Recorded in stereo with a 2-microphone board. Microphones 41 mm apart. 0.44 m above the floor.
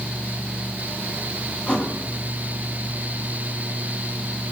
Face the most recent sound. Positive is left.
turn(degrees=35)  # may be behind; listen again after turning